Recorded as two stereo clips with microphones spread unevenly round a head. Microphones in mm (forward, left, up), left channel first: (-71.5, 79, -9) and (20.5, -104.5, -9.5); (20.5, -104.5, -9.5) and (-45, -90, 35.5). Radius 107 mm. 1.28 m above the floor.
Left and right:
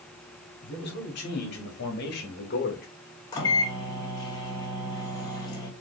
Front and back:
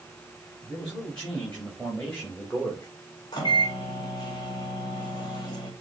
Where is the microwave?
45° left, 1.3 m.